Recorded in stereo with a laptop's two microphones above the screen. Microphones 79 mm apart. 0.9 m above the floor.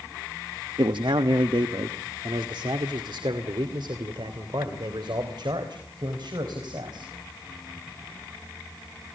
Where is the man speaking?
70° right (ahead or behind), 0.9 m; by 7.1 s 65° right (ahead or behind), 4 m.